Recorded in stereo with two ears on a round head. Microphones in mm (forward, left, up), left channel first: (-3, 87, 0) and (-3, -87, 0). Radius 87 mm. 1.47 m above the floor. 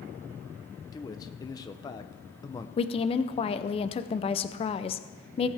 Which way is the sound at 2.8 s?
30° left (ahead or behind).